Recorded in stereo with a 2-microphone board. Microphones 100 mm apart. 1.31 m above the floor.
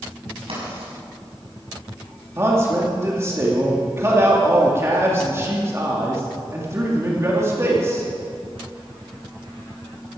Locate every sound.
0.5 s writing: 80° right, 6.5 m
2.4 s a man speaking: 30° right (ahead or behind), 2.5 m